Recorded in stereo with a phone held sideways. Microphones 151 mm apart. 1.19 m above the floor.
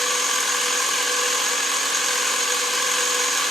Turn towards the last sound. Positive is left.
turn(degrees=0)  # may be behind; listen again after turning